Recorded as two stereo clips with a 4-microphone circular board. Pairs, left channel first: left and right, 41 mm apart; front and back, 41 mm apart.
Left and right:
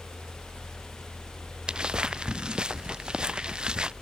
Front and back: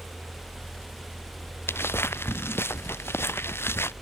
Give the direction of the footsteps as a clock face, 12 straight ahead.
1 o'clock.